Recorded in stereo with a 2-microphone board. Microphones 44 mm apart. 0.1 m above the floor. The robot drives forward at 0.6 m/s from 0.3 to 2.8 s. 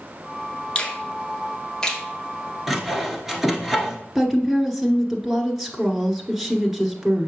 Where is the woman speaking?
10° right (ahead or behind), 1.1 m.